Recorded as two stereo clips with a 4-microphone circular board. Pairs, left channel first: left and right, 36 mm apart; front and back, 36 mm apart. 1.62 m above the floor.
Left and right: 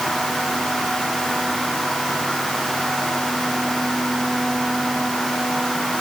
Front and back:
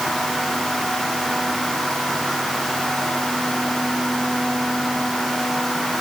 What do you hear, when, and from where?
Only background noise.